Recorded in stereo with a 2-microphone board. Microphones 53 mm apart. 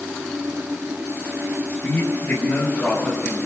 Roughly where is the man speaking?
Left.